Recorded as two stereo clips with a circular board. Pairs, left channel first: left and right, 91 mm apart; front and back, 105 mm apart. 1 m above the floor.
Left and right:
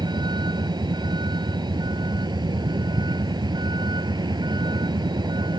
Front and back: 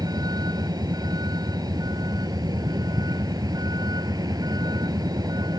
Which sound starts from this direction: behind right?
A vehicle, at 0.0 s.